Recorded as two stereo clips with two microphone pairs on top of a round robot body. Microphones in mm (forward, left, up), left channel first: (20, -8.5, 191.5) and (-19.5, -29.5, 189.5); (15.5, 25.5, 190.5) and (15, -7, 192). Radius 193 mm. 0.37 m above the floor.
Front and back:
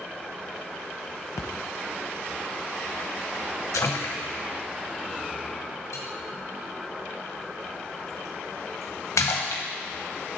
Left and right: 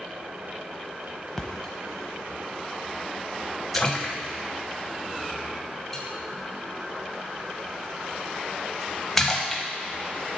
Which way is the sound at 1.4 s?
10° left.